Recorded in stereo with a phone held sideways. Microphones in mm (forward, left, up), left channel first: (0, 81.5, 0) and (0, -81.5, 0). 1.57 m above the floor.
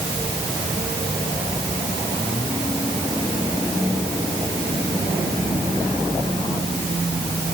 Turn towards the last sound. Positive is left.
No sound to turn to.